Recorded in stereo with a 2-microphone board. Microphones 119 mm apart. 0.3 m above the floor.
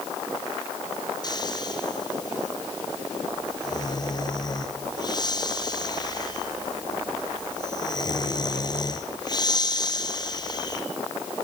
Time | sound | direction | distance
1.2 | snoring | 35° left (ahead or behind) | 2.5 m